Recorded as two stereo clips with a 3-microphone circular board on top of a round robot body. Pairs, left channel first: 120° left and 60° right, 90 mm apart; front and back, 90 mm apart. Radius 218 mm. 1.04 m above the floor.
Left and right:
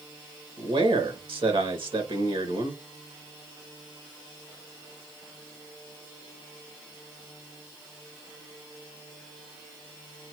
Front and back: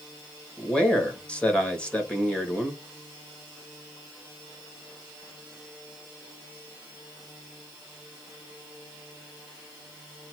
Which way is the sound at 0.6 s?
80° right.